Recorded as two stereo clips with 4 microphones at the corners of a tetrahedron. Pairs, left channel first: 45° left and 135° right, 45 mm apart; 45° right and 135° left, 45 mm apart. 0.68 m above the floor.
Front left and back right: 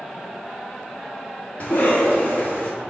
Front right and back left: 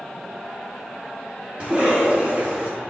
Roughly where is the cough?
Left.